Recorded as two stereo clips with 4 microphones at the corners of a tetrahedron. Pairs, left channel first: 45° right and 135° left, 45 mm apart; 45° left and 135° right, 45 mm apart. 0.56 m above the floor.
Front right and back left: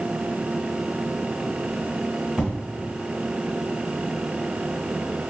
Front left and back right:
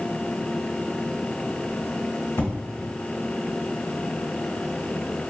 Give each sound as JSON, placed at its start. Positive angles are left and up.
{"t": 2.4, "sound": "an explosion", "azimuth_deg": 55, "distance_m": 1.1}